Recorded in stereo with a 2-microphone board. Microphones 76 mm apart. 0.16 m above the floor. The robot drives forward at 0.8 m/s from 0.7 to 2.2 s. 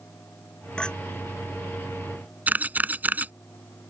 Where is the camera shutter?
20° right (ahead or behind).